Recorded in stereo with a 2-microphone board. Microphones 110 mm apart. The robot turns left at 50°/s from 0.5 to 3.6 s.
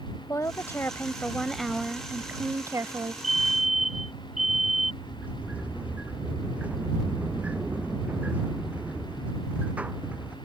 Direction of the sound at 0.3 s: 55° left.